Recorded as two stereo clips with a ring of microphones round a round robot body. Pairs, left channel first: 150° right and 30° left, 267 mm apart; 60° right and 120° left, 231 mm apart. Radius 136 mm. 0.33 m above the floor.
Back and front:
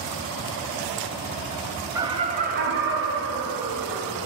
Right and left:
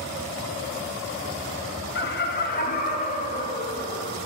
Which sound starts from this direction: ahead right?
Laughter, at 1.9 s.